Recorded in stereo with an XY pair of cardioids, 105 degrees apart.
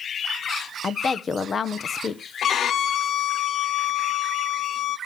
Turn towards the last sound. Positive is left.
turn(degrees=60)